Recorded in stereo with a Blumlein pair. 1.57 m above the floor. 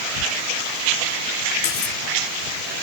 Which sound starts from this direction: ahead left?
Cutlery clinking, at 1.6 s.